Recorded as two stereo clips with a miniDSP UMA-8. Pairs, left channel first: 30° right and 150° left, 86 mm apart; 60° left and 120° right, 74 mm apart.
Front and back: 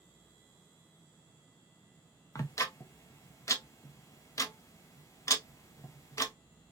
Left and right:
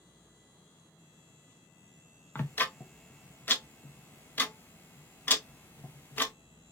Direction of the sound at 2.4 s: 5° left.